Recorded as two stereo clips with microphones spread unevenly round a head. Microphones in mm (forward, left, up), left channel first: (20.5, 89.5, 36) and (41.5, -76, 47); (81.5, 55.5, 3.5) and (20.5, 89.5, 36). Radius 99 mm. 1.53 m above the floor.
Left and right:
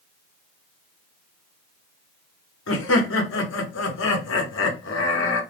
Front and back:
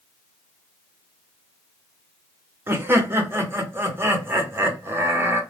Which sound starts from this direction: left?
Laughter, at 2.7 s.